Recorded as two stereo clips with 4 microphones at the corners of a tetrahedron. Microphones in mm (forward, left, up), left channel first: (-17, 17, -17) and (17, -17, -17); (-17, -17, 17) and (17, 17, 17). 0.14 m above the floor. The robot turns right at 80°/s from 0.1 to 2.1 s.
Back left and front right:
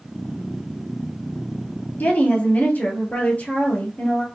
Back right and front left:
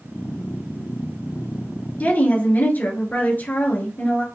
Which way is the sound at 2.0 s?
175° left.